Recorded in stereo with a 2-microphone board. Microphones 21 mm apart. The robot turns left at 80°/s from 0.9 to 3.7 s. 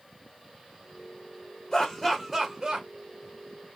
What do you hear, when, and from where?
1.7 s laughter: 45° left (ahead or behind), 1.6 m; by 2.9 s 40° right (ahead or behind), 1.6 m